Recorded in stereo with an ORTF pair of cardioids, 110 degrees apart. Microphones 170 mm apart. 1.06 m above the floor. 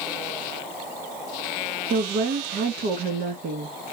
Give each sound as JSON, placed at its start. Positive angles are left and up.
{"t": 1.9, "sound": "a woman speaking", "azimuth_deg": -65, "distance_m": 1.4}